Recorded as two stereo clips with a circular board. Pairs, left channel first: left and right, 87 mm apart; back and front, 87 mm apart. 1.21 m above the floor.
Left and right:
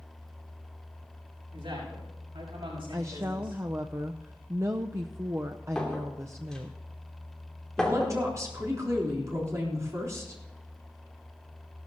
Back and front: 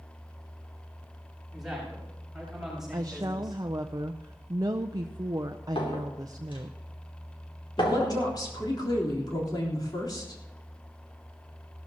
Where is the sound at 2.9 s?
35° right, 0.5 m.